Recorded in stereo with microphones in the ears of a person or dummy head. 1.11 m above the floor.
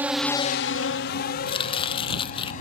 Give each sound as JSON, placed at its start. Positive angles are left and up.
{"t": 0.0, "sound": "a drone", "side_deg": -10}
{"t": 1.5, "sound": "chopping", "side_deg": 30}